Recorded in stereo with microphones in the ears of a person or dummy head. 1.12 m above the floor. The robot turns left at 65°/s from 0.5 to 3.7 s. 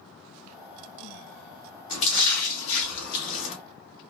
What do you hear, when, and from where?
1.9 s a splash: 145° left, 2 m; by 3.5 s 40° left, 2 m